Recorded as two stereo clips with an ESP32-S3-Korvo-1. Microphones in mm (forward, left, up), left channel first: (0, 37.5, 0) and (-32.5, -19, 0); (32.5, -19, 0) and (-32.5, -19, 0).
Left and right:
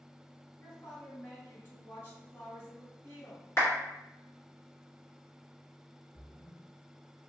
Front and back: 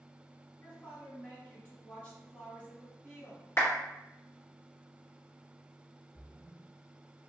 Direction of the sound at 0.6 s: 55° left.